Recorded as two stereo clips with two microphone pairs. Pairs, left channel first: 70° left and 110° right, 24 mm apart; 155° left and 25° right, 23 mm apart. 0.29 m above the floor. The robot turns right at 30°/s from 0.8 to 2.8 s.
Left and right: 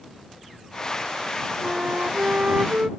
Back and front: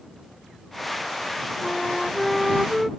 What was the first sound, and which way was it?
A flute, 140° right.